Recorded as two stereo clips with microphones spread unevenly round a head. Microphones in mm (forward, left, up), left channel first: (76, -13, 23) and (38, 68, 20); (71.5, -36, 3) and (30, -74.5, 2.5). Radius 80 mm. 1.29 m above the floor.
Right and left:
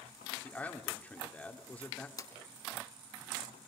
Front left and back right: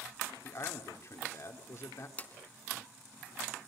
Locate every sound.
0.4 s a man speaking: 10° left, 3 m
2.2 s a drawer: 20° right, 3 m